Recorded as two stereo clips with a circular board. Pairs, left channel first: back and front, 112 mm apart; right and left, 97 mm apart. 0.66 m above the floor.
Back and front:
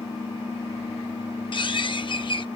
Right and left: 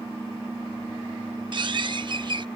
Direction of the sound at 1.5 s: 135° left.